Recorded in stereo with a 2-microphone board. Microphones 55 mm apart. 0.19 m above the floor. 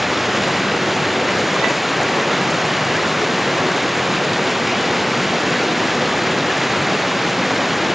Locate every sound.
0.0 s running water: 5° right (ahead or behind)